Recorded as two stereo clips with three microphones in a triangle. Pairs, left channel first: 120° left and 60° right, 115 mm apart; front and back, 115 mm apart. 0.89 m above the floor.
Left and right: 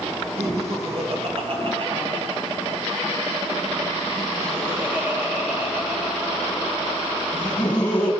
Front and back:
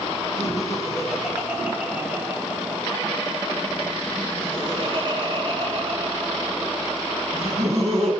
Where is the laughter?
90° right, 4.5 m; by 8.1 s 165° right, 5 m.